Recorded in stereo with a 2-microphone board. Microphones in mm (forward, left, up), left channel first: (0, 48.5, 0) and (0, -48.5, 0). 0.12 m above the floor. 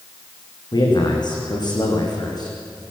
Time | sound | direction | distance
0.7 | a man speaking | 50° left (ahead or behind) | 7.5 m